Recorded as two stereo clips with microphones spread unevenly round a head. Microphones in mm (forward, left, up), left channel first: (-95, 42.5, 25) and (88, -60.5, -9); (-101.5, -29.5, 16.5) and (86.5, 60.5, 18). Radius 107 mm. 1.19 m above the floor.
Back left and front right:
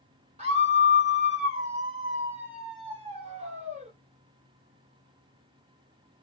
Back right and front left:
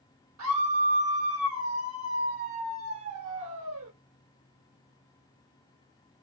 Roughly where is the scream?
Ahead left.